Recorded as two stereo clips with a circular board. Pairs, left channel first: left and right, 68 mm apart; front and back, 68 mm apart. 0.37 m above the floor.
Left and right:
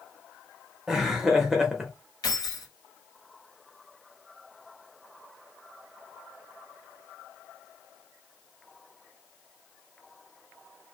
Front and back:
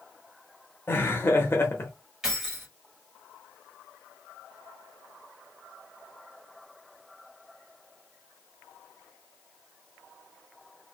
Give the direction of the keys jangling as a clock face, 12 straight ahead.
9 o'clock.